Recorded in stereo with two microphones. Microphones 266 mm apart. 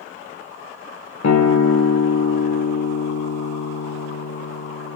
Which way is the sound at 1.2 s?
75° left (ahead or behind).